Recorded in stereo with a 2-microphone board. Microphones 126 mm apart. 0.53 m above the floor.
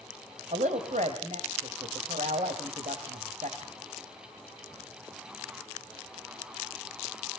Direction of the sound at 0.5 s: 70° right (ahead or behind).